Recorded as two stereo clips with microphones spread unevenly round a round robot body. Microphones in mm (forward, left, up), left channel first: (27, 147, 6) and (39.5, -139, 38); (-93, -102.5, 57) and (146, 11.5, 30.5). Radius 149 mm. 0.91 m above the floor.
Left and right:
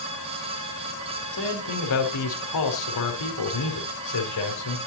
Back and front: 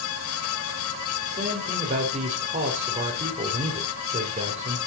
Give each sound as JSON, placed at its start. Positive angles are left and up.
{"t": 1.3, "sound": "a man speaking", "azimuth_deg": 90, "distance_m": 3.5}